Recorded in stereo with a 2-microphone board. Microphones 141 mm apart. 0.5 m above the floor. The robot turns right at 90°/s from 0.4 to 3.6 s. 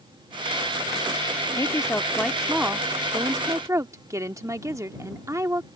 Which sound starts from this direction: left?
A woman speaking, at 1.6 s.